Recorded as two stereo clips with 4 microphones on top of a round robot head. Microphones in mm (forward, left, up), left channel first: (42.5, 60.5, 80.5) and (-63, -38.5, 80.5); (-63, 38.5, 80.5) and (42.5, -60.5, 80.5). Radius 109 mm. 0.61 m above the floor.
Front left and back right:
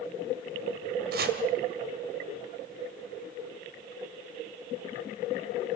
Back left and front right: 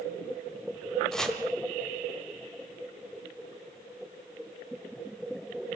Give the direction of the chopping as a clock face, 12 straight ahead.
5 o'clock.